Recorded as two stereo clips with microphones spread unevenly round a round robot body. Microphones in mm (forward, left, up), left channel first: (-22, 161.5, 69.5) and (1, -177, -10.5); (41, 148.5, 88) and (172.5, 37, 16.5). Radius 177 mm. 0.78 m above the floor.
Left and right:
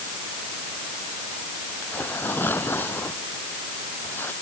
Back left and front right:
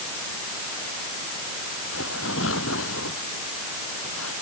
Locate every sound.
1.8 s tearing paper: 175° left